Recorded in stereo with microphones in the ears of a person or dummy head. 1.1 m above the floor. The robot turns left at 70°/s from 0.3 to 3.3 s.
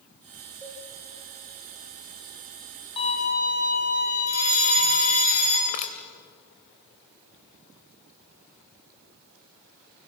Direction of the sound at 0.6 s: 15° right (ahead or behind).